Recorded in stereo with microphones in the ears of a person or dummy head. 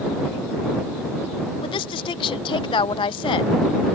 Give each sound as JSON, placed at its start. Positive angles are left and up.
{"t": 1.6, "sound": "a woman speaking", "side_deg": 25}